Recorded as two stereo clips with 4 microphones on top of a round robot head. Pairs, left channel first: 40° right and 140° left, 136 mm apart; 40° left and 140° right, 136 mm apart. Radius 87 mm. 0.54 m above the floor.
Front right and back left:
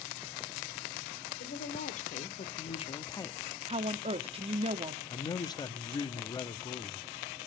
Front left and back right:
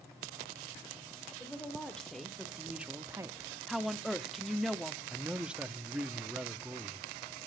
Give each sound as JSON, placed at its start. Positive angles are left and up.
{"t": 1.4, "sound": "a woman speaking", "azimuth_deg": -40, "distance_m": 2.0}
{"t": 3.7, "sound": "a woman speaking", "azimuth_deg": 135, "distance_m": 0.8}
{"t": 5.1, "sound": "a man speaking", "azimuth_deg": -60, "distance_m": 0.8}